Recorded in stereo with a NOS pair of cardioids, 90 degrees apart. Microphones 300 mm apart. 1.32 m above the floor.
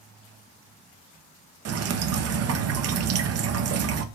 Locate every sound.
1.6 s dripping: 55° right, 0.6 m